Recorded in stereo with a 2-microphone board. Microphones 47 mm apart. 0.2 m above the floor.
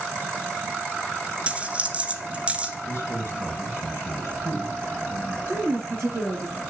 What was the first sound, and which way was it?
A dropped coin, 25° right (ahead or behind).